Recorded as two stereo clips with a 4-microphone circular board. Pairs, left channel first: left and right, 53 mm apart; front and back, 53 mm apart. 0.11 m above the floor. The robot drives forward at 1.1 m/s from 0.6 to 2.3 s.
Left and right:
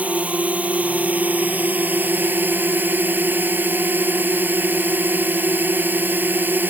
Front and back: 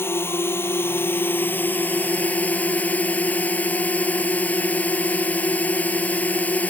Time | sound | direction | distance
0.0 | a drone | 30° right | ?